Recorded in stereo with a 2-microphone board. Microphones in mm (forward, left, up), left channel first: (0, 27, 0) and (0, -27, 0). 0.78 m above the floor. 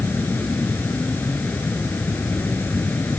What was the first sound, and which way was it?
An insect, 40° left (ahead or behind).